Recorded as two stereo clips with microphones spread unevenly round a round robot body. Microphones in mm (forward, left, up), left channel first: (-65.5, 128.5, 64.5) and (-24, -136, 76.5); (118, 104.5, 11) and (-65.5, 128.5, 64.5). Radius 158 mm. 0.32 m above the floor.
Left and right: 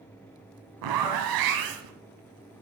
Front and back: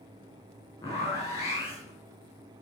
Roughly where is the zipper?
Right.